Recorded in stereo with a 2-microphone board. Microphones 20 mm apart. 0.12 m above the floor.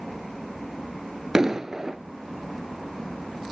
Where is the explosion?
30° right (ahead or behind), 0.6 m.